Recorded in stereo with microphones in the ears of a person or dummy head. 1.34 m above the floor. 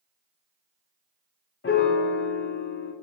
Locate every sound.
1.6 s a piano: 45° left (ahead or behind), 0.6 m